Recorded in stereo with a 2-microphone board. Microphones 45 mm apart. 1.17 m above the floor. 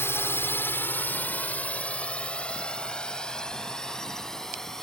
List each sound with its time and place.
0.0 s a drone: 80° left; by 4.8 s 10° left (ahead or behind)